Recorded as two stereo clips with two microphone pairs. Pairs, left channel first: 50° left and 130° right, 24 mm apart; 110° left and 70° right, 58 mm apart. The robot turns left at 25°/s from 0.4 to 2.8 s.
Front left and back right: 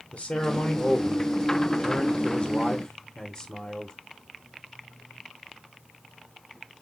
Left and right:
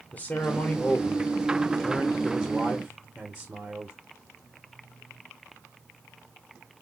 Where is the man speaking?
70° left, 0.9 m; by 4.0 s 10° left, 0.9 m.